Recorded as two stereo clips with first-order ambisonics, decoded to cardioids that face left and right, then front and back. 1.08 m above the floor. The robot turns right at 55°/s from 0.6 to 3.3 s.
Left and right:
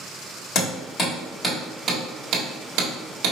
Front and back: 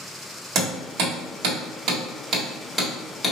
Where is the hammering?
135° left, 1.8 m; by 3.3 s 75° right, 1.8 m.